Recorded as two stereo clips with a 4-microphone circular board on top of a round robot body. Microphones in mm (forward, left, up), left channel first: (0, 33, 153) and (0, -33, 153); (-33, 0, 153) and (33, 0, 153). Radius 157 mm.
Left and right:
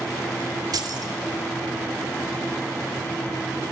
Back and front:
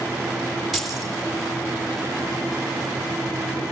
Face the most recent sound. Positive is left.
turn(degrees=-90)